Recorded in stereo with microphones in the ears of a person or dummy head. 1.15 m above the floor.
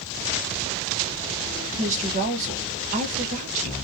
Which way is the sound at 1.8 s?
40° right (ahead or behind).